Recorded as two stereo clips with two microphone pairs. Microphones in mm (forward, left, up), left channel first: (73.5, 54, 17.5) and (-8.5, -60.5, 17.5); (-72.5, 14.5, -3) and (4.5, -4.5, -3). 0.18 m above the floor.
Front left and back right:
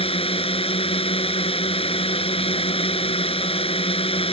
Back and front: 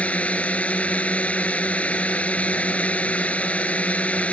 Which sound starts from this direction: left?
A drone, at 0.0 s.